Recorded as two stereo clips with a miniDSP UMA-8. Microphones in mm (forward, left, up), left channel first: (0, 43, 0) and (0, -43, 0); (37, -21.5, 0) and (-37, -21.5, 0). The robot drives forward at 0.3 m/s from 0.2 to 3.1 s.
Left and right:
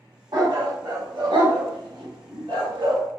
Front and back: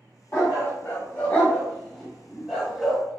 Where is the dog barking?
55° right, 1.1 m; by 3.0 s 100° right, 0.9 m.